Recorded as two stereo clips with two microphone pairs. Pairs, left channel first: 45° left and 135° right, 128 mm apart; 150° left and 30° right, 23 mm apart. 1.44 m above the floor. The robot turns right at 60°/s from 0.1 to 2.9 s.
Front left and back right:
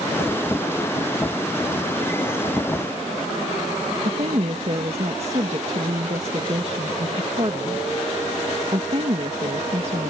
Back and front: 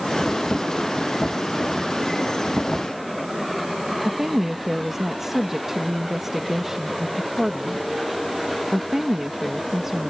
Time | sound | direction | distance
4.0 | a woman speaking | 100° right | ?